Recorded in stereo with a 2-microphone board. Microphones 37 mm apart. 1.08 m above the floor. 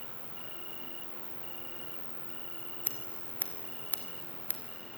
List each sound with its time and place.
0.0 s an insect: 30° right (ahead or behind), 0.9 m
2.8 s scissors: 55° left (ahead or behind), 2.5 m